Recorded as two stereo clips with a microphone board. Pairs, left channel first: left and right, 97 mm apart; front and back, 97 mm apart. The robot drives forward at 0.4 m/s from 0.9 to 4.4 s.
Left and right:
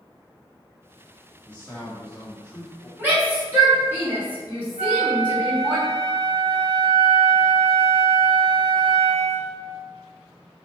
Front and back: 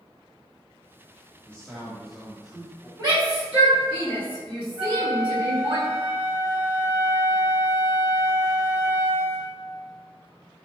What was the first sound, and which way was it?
A man speaking, 40° left.